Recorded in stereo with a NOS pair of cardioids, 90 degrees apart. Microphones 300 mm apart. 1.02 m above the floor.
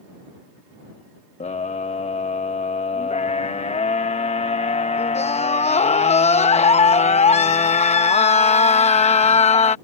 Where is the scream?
20° left.